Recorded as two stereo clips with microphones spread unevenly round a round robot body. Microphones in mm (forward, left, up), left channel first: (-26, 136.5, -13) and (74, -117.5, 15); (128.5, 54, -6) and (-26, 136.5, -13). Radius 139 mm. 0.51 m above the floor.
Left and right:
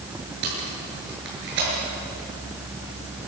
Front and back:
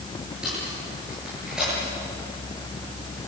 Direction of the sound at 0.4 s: 120° right.